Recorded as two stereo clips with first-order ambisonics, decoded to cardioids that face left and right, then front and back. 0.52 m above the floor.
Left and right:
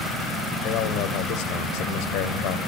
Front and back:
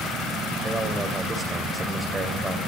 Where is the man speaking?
105° left, 2.5 m.